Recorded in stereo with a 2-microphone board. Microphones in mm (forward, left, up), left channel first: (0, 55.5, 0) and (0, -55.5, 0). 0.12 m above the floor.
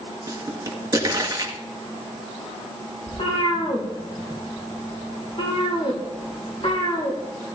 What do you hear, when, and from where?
0.3 s a pop: 35° right (ahead or behind), 2.0 m
3.1 s a cat meowing: 55° left (ahead or behind), 4 m